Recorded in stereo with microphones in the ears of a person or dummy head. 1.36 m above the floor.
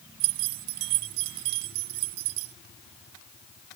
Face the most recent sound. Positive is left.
turn(degrees=-45)  # may be behind; listen again after turning